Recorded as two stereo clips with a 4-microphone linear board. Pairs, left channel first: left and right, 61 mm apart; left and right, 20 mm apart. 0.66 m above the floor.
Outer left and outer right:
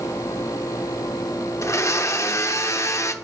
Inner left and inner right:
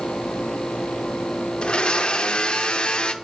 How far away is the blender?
About 0.6 m.